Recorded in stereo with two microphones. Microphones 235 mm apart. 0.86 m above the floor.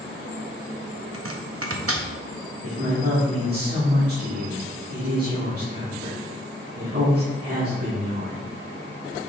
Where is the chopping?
70° right (ahead or behind), 0.8 m.